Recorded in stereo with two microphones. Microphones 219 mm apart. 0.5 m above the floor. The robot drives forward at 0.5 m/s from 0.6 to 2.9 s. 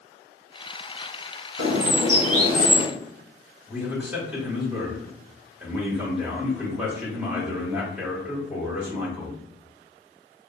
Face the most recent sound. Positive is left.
turn(degrees=-5)  # may be behind; listen again after turning